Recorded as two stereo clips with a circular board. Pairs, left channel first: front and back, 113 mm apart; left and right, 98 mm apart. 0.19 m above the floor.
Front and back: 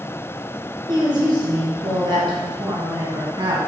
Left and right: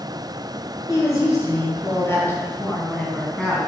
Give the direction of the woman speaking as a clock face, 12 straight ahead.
7 o'clock.